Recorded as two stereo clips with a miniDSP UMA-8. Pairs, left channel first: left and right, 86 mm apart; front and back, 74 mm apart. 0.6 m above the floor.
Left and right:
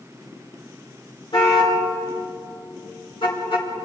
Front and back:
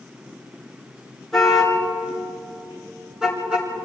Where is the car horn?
90° left, 5 m; by 3.7 s 105° left, 4 m.